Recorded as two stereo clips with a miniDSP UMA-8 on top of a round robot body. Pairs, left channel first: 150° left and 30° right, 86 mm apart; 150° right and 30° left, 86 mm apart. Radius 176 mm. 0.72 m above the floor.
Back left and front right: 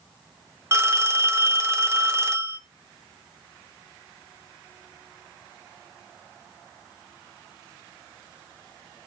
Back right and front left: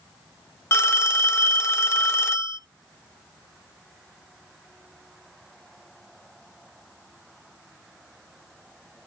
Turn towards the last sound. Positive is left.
turn(degrees=-90)